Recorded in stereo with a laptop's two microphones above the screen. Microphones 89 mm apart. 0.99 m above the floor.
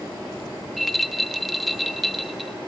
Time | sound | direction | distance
0.8 | a rattle | centre (ahead or behind) | 1.0 m